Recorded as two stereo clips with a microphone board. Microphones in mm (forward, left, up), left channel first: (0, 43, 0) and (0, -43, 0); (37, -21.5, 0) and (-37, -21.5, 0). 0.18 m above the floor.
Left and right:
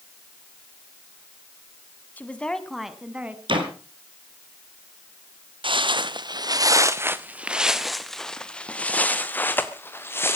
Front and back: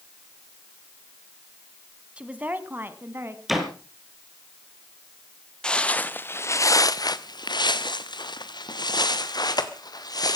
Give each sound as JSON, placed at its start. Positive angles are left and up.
{"t": 2.2, "sound": "a woman speaking", "azimuth_deg": 125, "distance_m": 1.4}
{"t": 3.5, "sound": "a door slam", "azimuth_deg": -95, "distance_m": 3.5}
{"t": 5.6, "sound": "footsteps", "azimuth_deg": -80, "distance_m": 1.2}